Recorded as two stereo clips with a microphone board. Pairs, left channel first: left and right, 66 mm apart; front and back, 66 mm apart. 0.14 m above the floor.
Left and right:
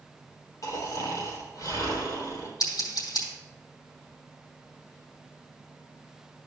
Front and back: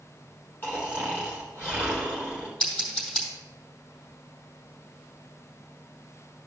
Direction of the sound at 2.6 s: 70° left.